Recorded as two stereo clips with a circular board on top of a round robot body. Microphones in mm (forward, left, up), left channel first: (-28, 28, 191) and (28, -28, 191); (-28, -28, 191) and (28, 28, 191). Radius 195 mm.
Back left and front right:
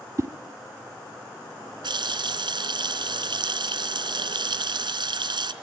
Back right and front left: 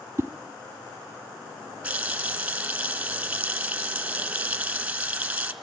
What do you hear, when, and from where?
0.2 s a whoosh: 10° right, 1.7 m
1.8 s a running tap: 30° right, 3 m